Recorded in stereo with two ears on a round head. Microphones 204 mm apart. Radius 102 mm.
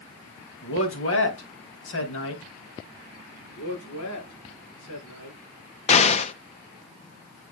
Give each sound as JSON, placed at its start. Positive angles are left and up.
{"t": 0.6, "sound": "a man speaking", "side_deg": 65, "distance_m": 2.5}
{"t": 3.5, "sound": "a man speaking", "side_deg": 80, "distance_m": 5.5}
{"t": 5.9, "sound": "an explosion", "side_deg": 30, "distance_m": 0.7}